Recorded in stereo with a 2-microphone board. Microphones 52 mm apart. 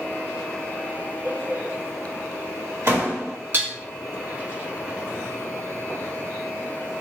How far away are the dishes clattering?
About 0.9 m.